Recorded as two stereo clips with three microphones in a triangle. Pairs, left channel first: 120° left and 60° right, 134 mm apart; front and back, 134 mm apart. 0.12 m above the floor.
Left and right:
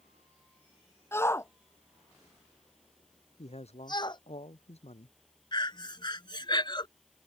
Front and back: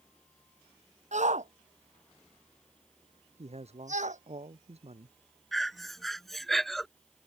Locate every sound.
1.1 s a shout: 170° right; by 4.2 s 170° left
3.4 s a man speaking: 150° left
5.5 s breathing: 90° left